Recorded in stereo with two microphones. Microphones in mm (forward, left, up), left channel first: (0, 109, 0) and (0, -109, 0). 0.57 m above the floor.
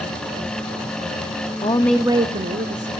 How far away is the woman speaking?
About 0.6 m.